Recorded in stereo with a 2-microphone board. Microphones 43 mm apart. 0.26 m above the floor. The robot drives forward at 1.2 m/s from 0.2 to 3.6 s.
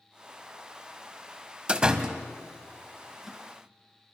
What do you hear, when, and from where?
1.7 s a door slam: 20° right (ahead or behind), 0.9 m; by 3.4 s 10° right (ahead or behind), 2.5 m